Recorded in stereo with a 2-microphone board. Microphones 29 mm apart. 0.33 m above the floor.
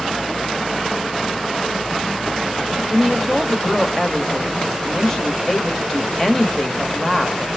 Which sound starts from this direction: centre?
A woman speaking, at 2.9 s.